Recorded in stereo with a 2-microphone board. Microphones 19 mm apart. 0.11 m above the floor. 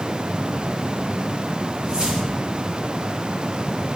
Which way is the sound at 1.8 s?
65° right (ahead or behind).